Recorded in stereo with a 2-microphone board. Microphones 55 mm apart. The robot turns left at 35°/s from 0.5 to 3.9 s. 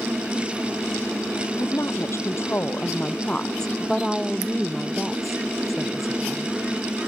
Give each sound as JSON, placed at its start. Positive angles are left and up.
{"t": 1.6, "sound": "a woman speaking", "azimuth_deg": 85}